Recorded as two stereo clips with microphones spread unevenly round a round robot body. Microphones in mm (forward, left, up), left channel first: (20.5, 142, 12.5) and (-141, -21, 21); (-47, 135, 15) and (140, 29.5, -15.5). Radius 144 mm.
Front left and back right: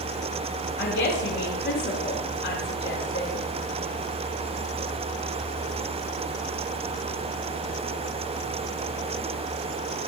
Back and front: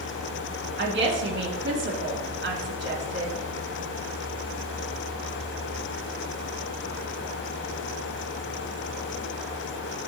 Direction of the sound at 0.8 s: 5° right.